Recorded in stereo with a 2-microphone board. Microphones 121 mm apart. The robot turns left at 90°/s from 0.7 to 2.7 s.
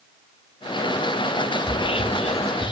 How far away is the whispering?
About 0.7 m.